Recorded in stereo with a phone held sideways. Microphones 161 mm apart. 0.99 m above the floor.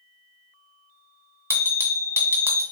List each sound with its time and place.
1.5 s a bell: 15° right (ahead or behind), 1.9 m